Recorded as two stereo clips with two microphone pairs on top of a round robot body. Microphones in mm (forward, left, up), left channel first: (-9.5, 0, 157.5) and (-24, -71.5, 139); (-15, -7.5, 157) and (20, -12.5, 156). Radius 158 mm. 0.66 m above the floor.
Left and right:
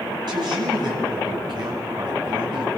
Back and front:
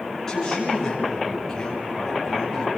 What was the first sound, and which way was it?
A woman speaking, 115° right.